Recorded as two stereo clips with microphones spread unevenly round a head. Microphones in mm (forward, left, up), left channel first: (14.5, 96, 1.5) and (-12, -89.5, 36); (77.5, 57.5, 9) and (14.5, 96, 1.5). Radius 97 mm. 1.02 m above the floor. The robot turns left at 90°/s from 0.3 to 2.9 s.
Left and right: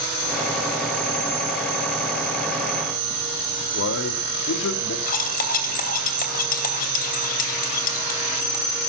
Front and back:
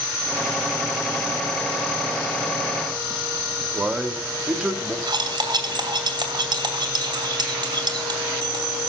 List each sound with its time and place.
3.7 s a man speaking: 75° left, 2.5 m
5.1 s cutlery clinking: 130° left, 2.5 m